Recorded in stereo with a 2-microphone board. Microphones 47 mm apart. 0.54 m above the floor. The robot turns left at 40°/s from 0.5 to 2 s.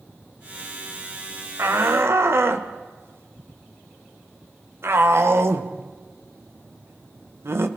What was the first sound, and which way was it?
A shout, 60° right (ahead or behind).